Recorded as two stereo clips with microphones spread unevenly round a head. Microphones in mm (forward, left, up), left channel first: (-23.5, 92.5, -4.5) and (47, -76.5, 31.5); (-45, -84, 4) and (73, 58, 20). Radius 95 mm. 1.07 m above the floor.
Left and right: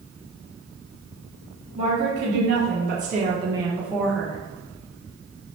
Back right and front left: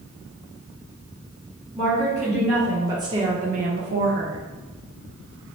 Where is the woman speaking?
50° right, 1.2 m; by 4.4 s 40° left, 0.9 m.